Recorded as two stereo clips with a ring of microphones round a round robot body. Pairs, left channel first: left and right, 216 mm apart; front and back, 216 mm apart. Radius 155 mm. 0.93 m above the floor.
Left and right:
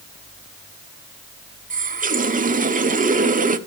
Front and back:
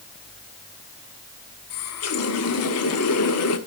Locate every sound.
1.7 s a running tap: 35° right, 1.2 m